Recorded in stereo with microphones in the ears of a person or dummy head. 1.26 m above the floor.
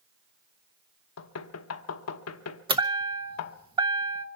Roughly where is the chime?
Right.